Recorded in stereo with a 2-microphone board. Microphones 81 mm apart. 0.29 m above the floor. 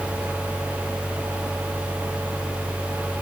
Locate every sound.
Only background noise.